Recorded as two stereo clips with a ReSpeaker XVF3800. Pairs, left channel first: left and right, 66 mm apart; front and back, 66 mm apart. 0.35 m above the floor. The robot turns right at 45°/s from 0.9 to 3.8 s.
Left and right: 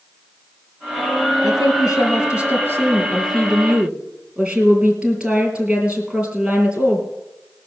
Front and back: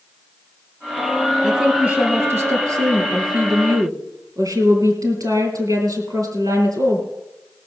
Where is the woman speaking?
95° left, 3 m; by 7.1 s 160° right, 3 m.